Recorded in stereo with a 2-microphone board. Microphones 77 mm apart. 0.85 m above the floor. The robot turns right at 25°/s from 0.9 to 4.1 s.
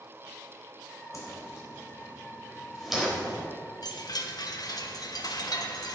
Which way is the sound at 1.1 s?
45° left (ahead or behind).